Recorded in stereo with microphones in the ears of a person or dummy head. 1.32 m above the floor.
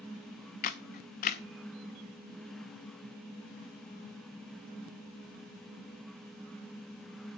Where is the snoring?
I don't hear snoring.